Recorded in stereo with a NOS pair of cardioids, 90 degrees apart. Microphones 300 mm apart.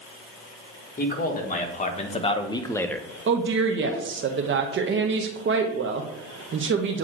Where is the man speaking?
30° left, 1.8 m; by 3.1 s straight ahead, 0.7 m.